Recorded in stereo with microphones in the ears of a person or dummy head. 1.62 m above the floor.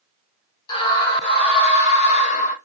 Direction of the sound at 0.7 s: 30° left (ahead or behind).